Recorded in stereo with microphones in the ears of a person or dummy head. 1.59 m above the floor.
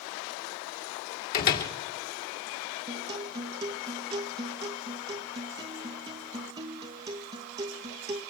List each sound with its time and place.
1.3 s a door slam: 50° left (ahead or behind), 2.5 m
2.9 s a guitar: 20° right (ahead or behind), 1.2 m